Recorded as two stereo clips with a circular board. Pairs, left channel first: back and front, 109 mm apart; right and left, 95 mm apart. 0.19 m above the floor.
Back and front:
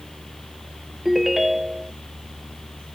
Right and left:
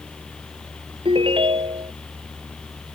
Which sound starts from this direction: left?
A ringtone, at 1.1 s.